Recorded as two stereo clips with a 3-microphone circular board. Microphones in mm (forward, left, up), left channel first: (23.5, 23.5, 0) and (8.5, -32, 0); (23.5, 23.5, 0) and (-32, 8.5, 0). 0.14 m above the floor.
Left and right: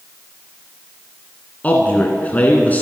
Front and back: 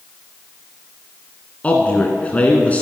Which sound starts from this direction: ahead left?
A man speaking, at 1.6 s.